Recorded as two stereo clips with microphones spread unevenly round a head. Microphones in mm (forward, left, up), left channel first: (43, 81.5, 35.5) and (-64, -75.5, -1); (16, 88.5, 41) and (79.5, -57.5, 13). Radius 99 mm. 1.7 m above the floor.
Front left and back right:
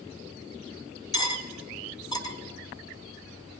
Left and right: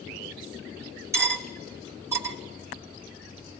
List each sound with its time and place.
1.1 s cutlery clinking: 10° left, 1.2 m